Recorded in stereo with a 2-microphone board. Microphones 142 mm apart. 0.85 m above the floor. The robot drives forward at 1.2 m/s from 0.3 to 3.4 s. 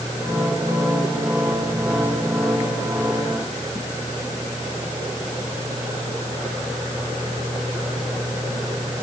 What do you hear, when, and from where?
Only background noise.